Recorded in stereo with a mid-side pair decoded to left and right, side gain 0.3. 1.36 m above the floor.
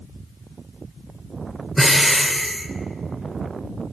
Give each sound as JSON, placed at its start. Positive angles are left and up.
{"t": 1.8, "sound": "breathing", "azimuth_deg": -5, "distance_m": 0.6}